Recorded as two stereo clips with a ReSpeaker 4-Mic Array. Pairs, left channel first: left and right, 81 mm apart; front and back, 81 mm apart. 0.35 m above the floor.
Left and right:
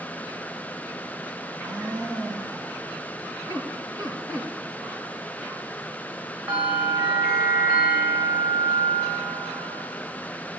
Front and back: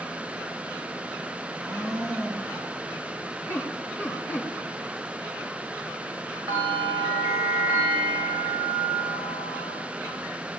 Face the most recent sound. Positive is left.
turn(degrees=-170)